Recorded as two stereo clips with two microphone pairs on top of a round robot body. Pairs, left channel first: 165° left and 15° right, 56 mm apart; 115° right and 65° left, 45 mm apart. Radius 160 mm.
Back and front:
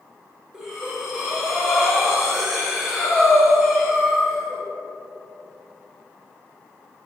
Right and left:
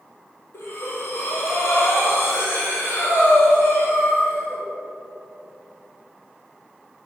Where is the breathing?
95° right, 1.8 m.